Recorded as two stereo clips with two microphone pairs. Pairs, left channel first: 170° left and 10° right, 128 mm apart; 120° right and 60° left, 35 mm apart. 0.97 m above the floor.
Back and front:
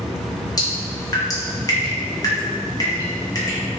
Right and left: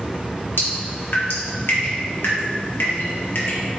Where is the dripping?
125° right, 1.0 m.